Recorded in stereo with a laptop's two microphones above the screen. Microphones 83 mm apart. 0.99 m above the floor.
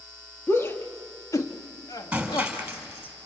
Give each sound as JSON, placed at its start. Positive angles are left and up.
{"t": 0.5, "sound": "a shout", "side_deg": 30, "distance_m": 2.0}
{"t": 2.1, "sound": "breaking glass", "side_deg": -15, "distance_m": 4.0}